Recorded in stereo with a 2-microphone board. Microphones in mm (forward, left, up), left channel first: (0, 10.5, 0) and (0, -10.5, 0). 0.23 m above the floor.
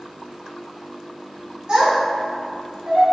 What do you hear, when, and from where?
1.7 s a child speaking: 45° right (ahead or behind), 1.3 m; by 3.0 s 60° right (ahead or behind), 1.9 m